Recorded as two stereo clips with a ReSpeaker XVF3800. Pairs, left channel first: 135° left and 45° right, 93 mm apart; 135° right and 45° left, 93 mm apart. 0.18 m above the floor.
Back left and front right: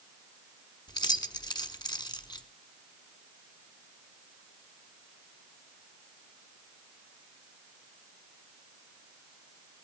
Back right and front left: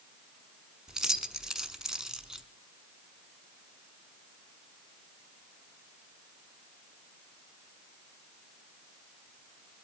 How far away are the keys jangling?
About 1.0 m.